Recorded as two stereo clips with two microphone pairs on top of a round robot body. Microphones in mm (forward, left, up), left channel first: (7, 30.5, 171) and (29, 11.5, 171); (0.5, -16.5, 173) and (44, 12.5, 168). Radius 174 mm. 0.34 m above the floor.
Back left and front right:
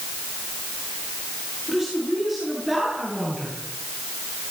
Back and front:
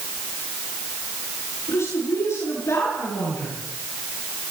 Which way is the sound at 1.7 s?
120° right.